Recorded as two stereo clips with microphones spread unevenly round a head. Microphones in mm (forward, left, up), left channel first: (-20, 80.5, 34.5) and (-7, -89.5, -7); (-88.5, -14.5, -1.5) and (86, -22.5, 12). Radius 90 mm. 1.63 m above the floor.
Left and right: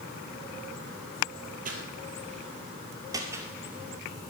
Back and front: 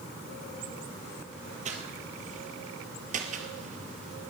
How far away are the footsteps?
About 2.5 m.